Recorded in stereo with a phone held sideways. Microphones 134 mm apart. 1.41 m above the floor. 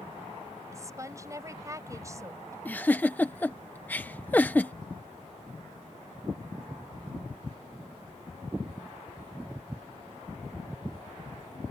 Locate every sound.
0.7 s a woman speaking: 25° right (ahead or behind)
2.6 s a giggle: 15° left (ahead or behind)